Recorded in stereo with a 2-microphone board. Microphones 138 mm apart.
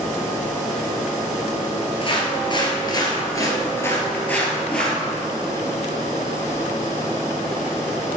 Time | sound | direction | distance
2.0 | footsteps | 40° left (ahead or behind) | 1.9 m